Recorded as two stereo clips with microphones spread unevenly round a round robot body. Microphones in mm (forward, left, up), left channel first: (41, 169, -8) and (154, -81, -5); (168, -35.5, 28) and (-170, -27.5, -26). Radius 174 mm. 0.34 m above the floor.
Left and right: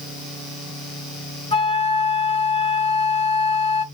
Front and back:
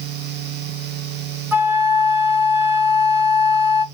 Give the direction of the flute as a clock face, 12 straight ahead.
8 o'clock.